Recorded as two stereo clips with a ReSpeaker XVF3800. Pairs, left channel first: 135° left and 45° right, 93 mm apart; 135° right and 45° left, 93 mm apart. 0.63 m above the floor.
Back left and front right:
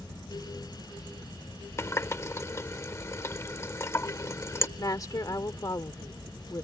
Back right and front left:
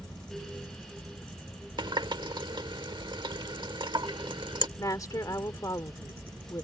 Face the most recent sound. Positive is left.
turn(degrees=180)